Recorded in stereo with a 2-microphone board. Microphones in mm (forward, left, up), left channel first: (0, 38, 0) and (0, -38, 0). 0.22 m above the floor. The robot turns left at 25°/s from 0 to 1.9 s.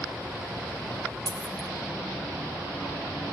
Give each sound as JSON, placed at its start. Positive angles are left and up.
{"t": 1.3, "sound": "a dropped coin", "side_deg": -70, "distance_m": 0.6}